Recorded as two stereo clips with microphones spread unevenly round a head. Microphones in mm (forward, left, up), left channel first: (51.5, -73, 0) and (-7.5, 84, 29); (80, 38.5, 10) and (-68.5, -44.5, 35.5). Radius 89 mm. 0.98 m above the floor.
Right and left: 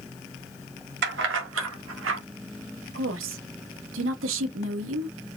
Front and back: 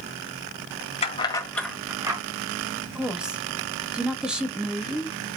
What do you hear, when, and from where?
1.0 s keys jangling: 85° left, 1.9 m; by 2.2 s 140° left, 2 m
3.0 s a woman speaking: 120° left, 1.6 m